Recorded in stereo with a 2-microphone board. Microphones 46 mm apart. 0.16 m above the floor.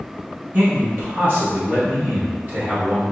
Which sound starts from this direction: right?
A man speaking, at 0.5 s.